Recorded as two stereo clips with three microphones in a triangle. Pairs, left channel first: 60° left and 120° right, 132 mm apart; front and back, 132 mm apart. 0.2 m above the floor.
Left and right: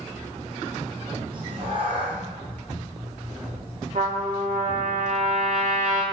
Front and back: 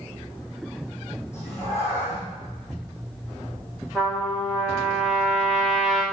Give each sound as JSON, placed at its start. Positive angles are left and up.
{"t": 1.3, "sound": "a cat meowing", "azimuth_deg": -70, "distance_m": 4.5}
{"t": 4.0, "sound": "a trumpet", "azimuth_deg": -90, "distance_m": 4.0}